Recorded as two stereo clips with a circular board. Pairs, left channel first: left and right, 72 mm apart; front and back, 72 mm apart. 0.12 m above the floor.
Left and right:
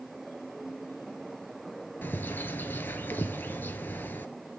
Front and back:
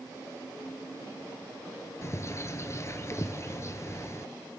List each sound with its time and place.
2.0 s a bird: 35° left, 0.9 m